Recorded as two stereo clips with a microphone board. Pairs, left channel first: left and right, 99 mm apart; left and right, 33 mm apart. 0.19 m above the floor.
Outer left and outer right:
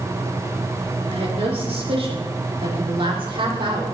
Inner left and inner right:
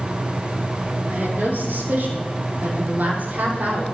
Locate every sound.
1.1 s a woman speaking: 80° right, 6.5 m; by 3.9 s 55° right (ahead or behind), 8 m